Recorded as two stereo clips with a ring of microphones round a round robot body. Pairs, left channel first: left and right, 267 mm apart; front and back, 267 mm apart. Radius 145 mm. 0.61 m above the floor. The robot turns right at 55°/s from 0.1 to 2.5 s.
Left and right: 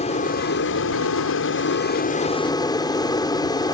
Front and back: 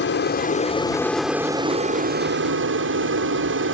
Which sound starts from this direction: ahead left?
An aircraft, at 0.0 s.